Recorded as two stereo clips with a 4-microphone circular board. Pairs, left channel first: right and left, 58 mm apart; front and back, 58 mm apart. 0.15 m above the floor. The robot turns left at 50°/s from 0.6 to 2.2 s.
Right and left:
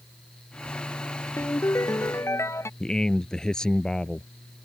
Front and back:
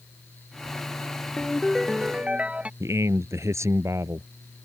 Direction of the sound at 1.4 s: 70° right.